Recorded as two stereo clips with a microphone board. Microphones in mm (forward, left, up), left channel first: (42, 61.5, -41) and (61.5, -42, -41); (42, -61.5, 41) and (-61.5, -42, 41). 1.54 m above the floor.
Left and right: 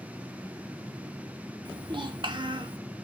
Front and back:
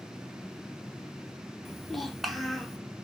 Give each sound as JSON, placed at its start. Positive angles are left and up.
{"t": 1.6, "sound": "a child speaking", "azimuth_deg": -100, "distance_m": 0.7}